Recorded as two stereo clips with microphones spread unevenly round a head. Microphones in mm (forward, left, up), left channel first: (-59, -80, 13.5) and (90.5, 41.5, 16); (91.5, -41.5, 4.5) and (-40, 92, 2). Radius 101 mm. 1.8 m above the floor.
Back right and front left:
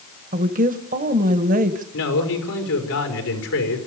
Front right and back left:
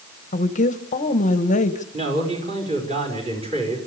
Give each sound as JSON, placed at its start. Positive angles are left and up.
{"t": 0.3, "sound": "a woman speaking", "azimuth_deg": 0, "distance_m": 1.3}
{"t": 1.9, "sound": "a man speaking", "azimuth_deg": -160, "distance_m": 5.0}